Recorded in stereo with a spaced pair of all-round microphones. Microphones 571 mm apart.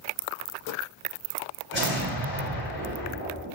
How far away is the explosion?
About 1.2 m.